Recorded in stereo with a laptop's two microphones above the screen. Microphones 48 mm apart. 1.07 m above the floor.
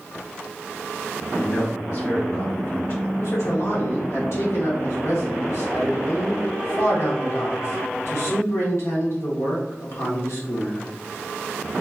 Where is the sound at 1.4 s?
70° left (ahead or behind), 1.3 m.